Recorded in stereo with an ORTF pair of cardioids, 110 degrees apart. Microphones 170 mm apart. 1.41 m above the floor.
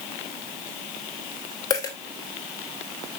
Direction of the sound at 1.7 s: 25° left.